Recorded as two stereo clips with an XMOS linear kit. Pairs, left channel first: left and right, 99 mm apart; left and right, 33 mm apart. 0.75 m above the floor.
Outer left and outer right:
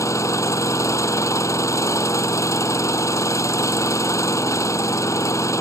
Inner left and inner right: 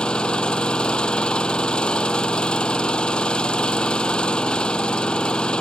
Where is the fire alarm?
No fire alarm in this recording.